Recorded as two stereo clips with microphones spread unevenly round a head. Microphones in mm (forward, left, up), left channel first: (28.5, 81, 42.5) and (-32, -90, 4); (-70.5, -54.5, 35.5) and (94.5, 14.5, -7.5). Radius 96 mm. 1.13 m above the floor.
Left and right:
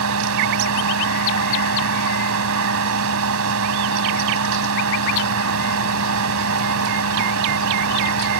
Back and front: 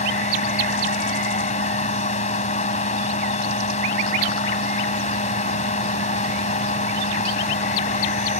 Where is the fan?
110° right.